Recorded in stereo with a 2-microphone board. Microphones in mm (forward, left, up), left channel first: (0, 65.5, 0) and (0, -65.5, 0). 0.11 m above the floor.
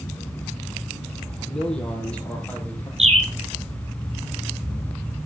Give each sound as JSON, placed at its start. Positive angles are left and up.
{"t": 1.5, "sound": "a man speaking", "side_deg": 5, "distance_m": 4.5}
{"t": 3.0, "sound": "a bird", "side_deg": -50, "distance_m": 2.5}